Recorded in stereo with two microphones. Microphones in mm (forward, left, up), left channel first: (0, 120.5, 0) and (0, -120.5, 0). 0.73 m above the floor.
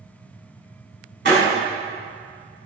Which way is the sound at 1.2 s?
55° right (ahead or behind).